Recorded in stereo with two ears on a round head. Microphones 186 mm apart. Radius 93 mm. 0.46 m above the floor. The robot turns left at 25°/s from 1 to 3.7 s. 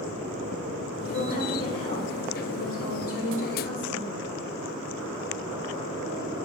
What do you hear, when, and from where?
1.1 s a woman speaking: 130° left, 1.7 m; by 4.2 s 65° left, 1.7 m